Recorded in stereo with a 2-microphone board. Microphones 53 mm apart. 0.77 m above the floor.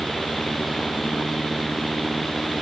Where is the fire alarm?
No fire alarm in this recording.